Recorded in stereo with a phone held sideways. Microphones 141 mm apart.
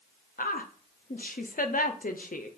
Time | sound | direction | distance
0.4 | a woman speaking | 80° left | 0.6 m